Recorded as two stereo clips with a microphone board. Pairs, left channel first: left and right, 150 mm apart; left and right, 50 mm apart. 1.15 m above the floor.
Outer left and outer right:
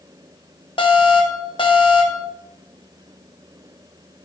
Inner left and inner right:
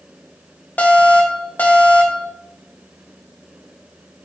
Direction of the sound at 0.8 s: 35° left (ahead or behind).